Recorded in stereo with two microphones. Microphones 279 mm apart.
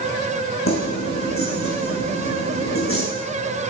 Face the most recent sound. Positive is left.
turn(degrees=50)  # may be behind; listen again after turning